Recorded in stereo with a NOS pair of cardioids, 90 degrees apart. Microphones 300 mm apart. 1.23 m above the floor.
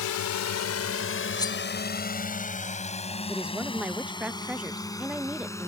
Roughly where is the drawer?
I don't hear a drawer.